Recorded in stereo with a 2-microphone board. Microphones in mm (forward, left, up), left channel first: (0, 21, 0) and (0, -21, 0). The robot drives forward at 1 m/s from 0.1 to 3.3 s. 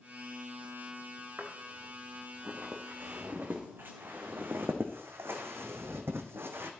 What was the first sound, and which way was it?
Footsteps, 55° right (ahead or behind).